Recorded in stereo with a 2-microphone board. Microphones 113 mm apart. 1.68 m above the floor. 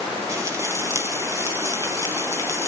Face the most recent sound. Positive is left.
turn(degrees=-30)  # may be behind; listen again after turning